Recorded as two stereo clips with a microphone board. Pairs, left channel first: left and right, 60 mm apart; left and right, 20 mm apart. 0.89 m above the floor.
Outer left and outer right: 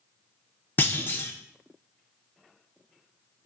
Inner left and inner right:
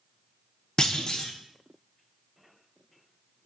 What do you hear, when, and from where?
0.8 s a clunk: 35° left (ahead or behind), 0.5 m